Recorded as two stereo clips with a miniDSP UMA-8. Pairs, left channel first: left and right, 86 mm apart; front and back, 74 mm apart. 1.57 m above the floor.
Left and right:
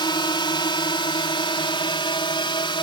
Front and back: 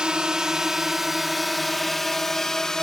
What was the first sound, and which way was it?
A drone, 100° left.